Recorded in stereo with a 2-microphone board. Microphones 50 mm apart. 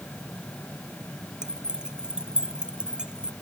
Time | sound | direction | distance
1.4 | keys jangling | 15° right (ahead or behind) | ?